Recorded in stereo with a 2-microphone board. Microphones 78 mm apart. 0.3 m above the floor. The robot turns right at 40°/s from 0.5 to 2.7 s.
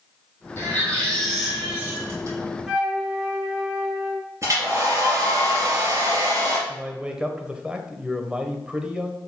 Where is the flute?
10° right (ahead or behind), 4 m; by 4.2 s 15° right (ahead or behind), 4 m.